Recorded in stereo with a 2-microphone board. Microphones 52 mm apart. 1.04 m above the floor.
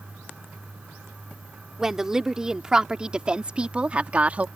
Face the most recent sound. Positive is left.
turn(degrees=-30)  # may be behind; listen again after turning